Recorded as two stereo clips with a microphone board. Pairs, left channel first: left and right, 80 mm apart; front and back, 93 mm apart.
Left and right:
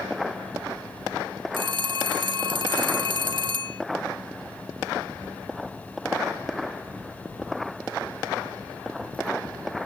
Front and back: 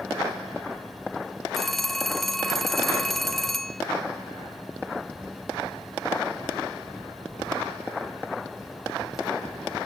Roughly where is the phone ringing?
Right.